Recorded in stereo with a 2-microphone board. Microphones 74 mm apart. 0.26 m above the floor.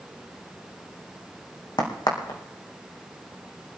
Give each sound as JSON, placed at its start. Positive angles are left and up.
{"t": 1.8, "sound": "a crack", "side_deg": 90, "distance_m": 3.5}